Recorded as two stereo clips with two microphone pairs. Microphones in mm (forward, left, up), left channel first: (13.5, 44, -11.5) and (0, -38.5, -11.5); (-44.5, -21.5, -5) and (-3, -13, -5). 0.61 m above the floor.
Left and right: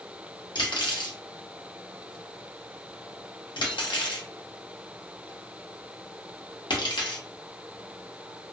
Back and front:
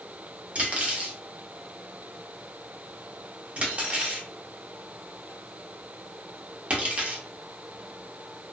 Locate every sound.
0.6 s cutlery clinking: 70° left, 0.7 m